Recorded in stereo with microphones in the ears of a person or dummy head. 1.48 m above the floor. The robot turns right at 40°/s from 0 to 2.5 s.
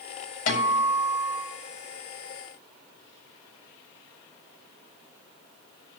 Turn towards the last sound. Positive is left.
turn(degrees=140)